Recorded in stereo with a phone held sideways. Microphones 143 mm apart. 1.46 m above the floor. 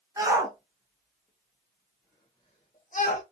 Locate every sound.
0.2 s a shout: 20° right (ahead or behind), 1.4 m; by 3.2 s 65° left (ahead or behind), 1.0 m